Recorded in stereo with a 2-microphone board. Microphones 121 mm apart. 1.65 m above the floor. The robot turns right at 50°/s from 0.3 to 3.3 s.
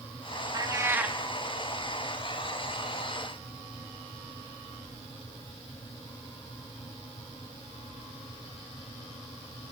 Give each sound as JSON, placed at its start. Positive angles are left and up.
{"t": 0.5, "sound": "a cat meowing", "azimuth_deg": -45, "distance_m": 1.4}